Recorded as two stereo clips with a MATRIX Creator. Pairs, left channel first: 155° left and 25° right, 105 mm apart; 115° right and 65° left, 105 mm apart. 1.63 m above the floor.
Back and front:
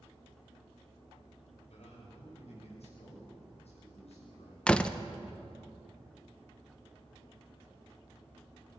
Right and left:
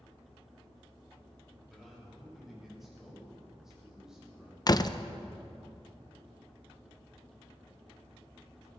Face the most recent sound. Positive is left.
turn(degrees=-125)